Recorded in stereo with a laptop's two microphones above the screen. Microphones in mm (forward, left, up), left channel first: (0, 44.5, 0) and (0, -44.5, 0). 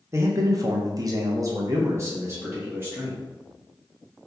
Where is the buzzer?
No buzzer in this recording.